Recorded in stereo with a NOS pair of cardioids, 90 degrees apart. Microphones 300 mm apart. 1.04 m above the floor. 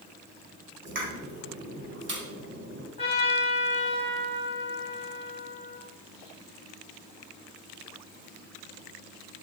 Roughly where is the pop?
Ahead right.